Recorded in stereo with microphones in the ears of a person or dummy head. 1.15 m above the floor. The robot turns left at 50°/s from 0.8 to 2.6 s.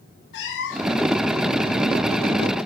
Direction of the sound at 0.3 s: 70° left (ahead or behind).